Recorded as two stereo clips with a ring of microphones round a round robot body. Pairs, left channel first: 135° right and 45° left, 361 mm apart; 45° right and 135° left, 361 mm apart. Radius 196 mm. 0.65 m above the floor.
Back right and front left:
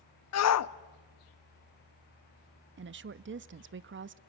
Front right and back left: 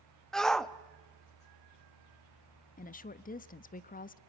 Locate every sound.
0.3 s a shout: 135° right, 0.8 m
2.8 s a woman speaking: 10° left, 0.6 m